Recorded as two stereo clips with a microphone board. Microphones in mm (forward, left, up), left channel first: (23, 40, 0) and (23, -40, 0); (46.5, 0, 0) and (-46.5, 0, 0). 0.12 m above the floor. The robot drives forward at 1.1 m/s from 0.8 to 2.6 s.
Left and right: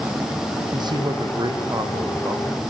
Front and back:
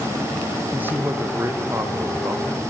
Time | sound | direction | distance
0.7 | a man speaking | 110° right | 4.5 m